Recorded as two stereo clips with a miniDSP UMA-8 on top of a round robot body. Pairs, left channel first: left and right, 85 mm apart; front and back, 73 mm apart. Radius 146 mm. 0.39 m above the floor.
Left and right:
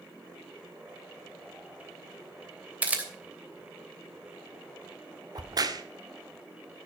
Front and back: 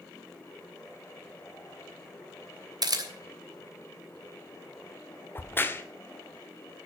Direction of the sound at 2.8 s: 160° right.